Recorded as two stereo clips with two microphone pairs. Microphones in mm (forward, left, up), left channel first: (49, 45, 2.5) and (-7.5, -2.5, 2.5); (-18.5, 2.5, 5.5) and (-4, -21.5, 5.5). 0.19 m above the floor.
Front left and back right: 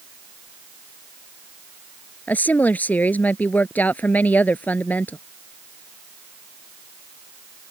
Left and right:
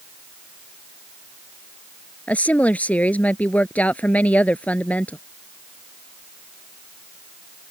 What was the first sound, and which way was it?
A woman speaking, 105° left.